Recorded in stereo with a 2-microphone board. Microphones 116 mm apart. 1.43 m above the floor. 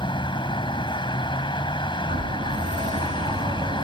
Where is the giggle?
I don't hear a giggle.